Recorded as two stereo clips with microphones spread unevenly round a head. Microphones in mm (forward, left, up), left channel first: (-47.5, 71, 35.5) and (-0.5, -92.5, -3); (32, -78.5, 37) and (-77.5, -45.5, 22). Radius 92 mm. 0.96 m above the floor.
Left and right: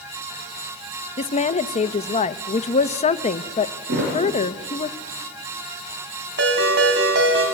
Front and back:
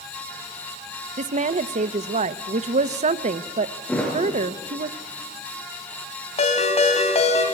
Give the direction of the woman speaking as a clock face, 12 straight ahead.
7 o'clock.